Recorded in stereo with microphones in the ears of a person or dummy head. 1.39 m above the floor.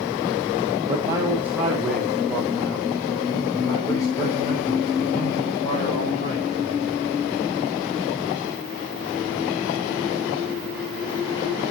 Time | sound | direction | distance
0.9 | a man speaking | 25° right (ahead or behind) | 2.5 m